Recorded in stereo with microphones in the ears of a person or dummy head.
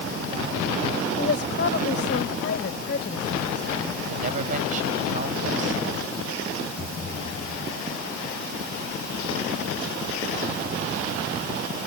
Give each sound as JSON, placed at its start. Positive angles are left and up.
{"t": 1.2, "sound": "a woman speaking", "side_deg": 55}
{"t": 4.1, "sound": "a woman speaking", "side_deg": -45}
{"t": 6.8, "sound": "a thud", "side_deg": 50}